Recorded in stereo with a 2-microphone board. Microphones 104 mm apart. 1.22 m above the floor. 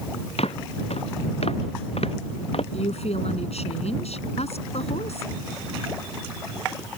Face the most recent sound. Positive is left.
turn(degrees=90)